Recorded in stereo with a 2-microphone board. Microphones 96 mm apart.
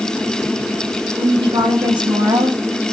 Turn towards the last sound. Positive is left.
turn(degrees=-65)  # may be behind; listen again after turning